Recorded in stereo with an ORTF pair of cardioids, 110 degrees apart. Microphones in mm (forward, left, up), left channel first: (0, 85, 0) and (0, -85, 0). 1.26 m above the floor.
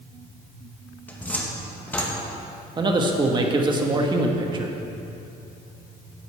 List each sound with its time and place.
1.1 s a cupboard door: 10° left, 1.6 m
2.8 s a man speaking: 25° right, 1.5 m